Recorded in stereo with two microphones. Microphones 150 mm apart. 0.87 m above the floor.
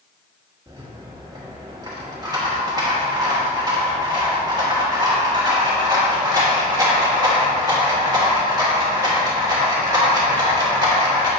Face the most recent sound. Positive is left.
turn(degrees=-25)  # may be behind; listen again after turning